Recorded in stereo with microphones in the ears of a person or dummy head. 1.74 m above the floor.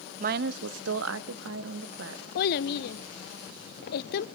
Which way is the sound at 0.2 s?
40° right (ahead or behind).